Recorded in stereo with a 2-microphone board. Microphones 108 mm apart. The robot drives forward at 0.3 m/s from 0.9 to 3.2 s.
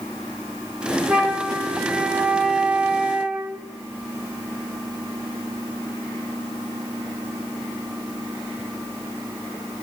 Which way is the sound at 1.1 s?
5° right (ahead or behind).